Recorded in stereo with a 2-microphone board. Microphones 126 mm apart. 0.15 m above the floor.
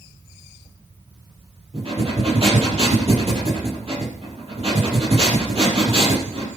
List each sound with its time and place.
1.7 s breathing: 50° right (ahead or behind), 4.5 m